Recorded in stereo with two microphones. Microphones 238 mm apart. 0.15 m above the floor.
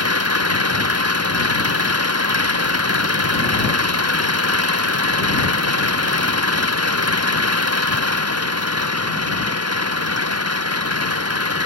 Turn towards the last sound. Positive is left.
turn(degrees=-80)